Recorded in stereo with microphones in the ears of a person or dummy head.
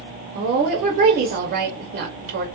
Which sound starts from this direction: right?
A woman speaking, at 0.3 s.